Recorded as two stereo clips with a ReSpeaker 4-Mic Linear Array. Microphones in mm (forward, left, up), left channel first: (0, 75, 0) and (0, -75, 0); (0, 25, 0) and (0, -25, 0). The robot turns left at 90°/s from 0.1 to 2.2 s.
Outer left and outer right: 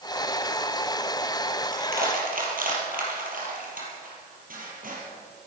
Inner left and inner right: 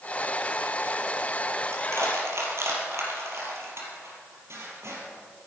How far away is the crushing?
About 4.5 m.